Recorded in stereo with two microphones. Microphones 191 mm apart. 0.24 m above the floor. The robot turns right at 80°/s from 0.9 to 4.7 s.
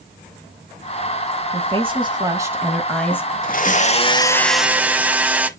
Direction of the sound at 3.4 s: 90° left.